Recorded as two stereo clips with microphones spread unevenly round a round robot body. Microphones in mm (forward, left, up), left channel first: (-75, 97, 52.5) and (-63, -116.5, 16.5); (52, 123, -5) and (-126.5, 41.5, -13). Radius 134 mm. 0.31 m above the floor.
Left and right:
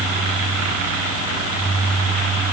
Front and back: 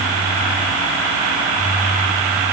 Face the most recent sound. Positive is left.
No sound to turn to.